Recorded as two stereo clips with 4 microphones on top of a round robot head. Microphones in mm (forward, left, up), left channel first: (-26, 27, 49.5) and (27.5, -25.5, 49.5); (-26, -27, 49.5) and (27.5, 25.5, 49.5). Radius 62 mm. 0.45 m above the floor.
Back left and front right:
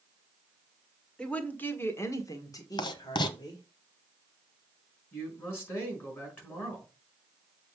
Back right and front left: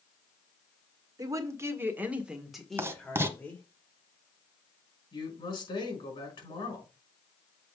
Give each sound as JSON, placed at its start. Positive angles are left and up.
{"t": 1.2, "sound": "a woman speaking", "azimuth_deg": 60, "distance_m": 1.8}
{"t": 2.8, "sound": "writing", "azimuth_deg": 105, "distance_m": 0.8}
{"t": 5.1, "sound": "a man speaking", "azimuth_deg": -160, "distance_m": 5.0}